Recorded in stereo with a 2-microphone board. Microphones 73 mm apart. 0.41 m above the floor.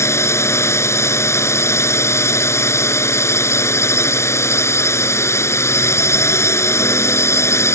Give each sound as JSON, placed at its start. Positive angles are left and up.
{"t": 0.0, "sound": "a drone", "side_deg": 40}